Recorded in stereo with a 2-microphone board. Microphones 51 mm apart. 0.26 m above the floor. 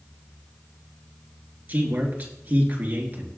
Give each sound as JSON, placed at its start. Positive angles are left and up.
{"t": 1.7, "sound": "a man speaking", "side_deg": -35, "distance_m": 3.5}